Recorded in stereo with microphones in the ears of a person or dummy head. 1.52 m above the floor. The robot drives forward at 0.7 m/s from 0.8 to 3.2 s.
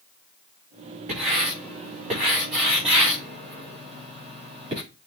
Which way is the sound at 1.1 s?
40° right (ahead or behind).